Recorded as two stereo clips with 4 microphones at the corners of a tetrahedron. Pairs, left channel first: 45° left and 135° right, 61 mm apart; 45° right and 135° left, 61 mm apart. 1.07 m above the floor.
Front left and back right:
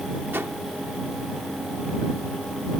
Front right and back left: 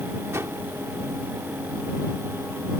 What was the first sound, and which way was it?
A whoosh, 175° left.